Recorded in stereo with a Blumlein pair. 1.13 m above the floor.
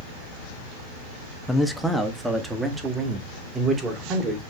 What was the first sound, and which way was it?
A man speaking, 5° left.